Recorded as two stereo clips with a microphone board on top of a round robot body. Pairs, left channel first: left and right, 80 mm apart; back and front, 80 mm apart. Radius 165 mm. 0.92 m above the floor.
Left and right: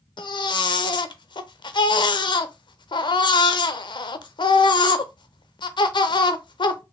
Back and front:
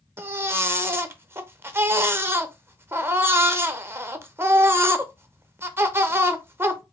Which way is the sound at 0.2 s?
65° left.